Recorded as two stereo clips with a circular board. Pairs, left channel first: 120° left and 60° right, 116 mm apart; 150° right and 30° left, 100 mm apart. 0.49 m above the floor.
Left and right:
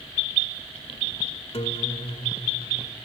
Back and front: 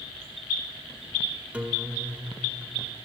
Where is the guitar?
105° left, 1.6 m.